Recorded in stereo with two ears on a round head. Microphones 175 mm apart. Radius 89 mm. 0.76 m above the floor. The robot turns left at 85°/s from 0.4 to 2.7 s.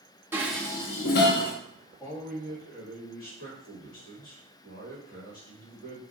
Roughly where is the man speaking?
Behind.